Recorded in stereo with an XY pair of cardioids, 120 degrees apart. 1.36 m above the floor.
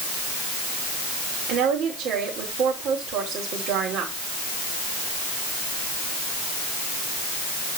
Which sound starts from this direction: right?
A woman speaking, at 1.5 s.